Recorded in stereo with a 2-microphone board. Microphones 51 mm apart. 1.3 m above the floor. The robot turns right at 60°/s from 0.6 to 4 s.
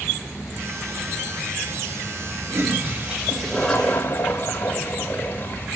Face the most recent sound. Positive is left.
turn(degrees=30)